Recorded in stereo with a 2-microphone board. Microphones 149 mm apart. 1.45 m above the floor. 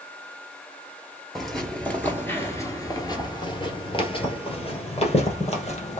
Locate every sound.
1.4 s footsteps: centre (ahead or behind), 1.5 m; by 6.0 s 45° left (ahead or behind), 2.5 m